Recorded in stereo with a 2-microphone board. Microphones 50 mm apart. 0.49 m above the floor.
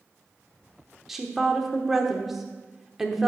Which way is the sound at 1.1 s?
5° right (ahead or behind).